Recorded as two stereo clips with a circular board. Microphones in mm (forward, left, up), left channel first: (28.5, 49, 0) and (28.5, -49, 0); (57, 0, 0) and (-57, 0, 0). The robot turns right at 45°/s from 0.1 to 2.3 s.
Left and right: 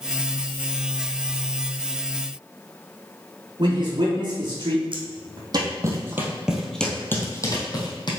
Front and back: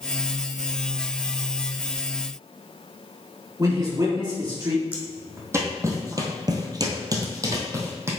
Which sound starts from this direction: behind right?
A man speaking, at 3.6 s.